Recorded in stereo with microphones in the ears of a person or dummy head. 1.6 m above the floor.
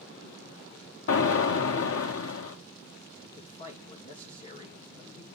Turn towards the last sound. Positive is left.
turn(degrees=30)  # may be behind; listen again after turning